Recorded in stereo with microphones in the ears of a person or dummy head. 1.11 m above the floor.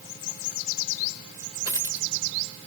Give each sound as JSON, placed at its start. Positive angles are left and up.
{"t": 1.6, "sound": "a dropped coin", "side_deg": -20, "distance_m": 1.0}